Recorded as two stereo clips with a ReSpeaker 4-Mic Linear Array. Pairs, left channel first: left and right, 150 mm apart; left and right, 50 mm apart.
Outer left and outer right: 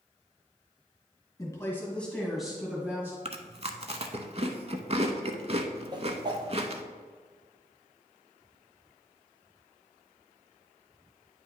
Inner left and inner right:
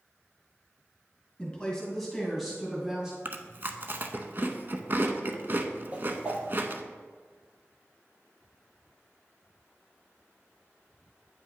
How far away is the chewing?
About 0.6 m.